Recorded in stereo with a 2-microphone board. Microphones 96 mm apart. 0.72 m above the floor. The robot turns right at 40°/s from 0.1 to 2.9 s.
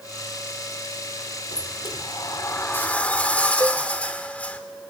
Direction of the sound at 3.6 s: 35° right (ahead or behind).